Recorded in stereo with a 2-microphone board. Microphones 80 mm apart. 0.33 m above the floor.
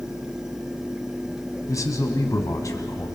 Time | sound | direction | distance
1.7 | a man speaking | 45° left (ahead or behind) | 2.5 m